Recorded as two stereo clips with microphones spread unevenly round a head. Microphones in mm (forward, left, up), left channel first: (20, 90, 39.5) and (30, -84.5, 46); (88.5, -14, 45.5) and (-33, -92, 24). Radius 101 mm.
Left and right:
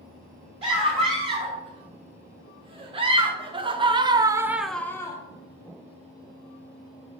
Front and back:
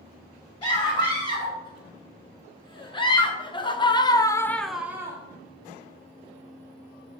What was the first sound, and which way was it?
A scream, 25° right.